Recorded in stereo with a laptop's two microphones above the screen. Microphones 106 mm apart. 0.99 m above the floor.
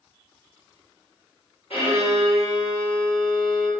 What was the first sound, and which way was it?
A violin, 70° left (ahead or behind).